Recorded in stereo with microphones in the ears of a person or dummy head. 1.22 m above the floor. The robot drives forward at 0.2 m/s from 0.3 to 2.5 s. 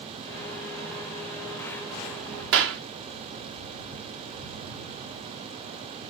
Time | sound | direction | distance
2.5 | a clap | 75° right (ahead or behind) | 0.6 m